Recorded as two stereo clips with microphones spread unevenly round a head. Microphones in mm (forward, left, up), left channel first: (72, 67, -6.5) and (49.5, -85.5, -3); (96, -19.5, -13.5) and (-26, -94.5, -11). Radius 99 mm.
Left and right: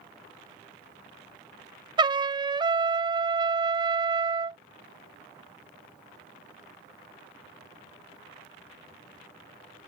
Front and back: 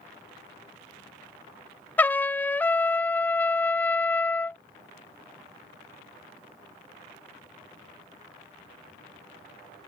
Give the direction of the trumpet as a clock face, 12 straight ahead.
2 o'clock.